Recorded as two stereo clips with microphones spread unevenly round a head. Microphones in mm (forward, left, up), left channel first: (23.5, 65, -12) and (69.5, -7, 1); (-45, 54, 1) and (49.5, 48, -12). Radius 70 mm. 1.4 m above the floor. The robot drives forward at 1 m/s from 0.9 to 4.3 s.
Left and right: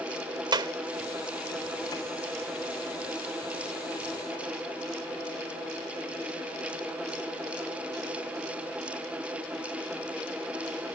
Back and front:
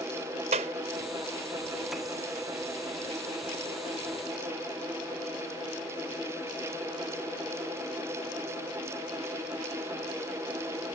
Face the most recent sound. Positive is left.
turn(degrees=-60)